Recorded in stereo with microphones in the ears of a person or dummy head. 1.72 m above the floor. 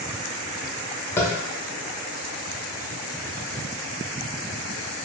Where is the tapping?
15° left (ahead or behind), 0.6 m.